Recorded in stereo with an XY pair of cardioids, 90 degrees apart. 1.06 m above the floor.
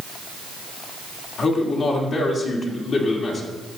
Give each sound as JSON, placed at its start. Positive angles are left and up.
{"t": 1.4, "sound": "a man speaking", "azimuth_deg": 60, "distance_m": 2.5}